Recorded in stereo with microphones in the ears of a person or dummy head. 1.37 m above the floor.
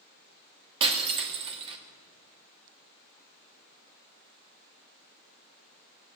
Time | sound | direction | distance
0.8 | breaking glass | 25° right (ahead or behind) | 1.7 m